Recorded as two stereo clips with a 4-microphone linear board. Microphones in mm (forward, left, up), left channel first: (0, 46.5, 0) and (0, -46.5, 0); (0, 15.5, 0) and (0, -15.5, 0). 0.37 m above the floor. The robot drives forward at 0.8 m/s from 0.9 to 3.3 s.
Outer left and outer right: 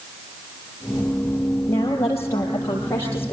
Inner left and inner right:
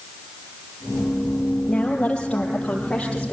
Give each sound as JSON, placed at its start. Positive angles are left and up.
{"t": 1.7, "sound": "a woman speaking", "side_deg": 30, "distance_m": 8.5}